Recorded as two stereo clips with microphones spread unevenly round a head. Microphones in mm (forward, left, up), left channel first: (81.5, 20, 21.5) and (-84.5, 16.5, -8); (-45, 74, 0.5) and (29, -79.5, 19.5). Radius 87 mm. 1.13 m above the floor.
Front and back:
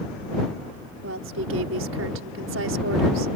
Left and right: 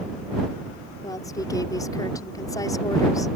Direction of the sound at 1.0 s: 175° right.